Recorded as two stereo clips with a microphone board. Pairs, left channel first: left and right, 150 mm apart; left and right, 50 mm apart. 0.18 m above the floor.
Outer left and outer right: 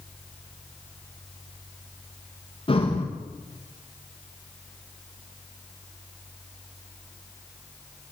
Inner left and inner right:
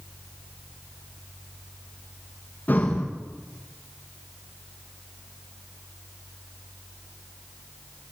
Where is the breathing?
35° left (ahead or behind), 6.5 m.